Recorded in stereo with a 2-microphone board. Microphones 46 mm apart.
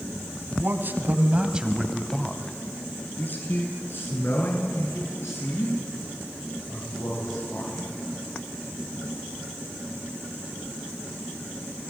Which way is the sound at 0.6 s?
50° right (ahead or behind).